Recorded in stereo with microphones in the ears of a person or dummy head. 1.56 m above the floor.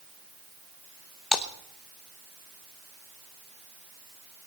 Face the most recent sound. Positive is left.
turn(degrees=0)  # may be behind; listen again after turning